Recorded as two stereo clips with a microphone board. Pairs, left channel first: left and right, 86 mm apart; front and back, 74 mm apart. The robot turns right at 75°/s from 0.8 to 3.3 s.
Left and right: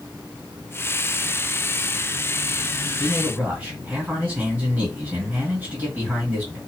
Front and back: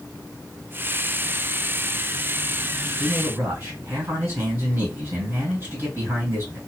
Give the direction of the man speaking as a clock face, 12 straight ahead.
6 o'clock.